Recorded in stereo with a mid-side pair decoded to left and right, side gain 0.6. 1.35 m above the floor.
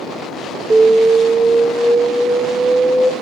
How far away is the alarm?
About 2 m.